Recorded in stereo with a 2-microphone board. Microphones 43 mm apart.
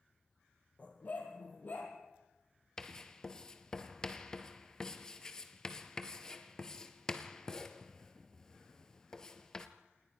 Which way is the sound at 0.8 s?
30° left (ahead or behind).